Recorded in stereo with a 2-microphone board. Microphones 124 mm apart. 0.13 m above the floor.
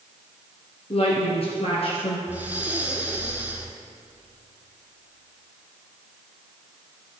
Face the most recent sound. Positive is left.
turn(degrees=-15)  # may be behind; listen again after turning